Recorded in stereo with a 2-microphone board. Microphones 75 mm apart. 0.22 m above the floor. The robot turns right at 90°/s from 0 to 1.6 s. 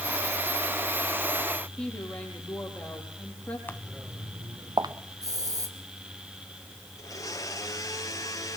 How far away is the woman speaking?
About 5.5 m.